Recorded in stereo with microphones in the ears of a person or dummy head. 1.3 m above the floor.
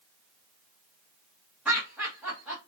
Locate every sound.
1.6 s laughter: centre (ahead or behind), 0.9 m